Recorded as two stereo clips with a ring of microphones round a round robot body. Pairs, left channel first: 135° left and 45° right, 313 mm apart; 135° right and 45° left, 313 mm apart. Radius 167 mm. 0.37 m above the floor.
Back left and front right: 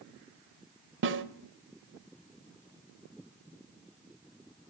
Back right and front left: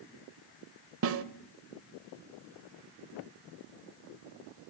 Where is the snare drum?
5° left, 1.2 m.